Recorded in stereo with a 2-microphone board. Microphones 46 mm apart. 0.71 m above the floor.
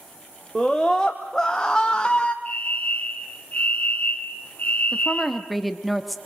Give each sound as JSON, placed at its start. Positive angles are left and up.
{"t": 0.6, "sound": "a scream", "side_deg": 5, "distance_m": 1.5}
{"t": 2.5, "sound": "a fire alarm", "side_deg": 30, "distance_m": 2.5}
{"t": 4.9, "sound": "a woman speaking", "side_deg": 0, "distance_m": 1.0}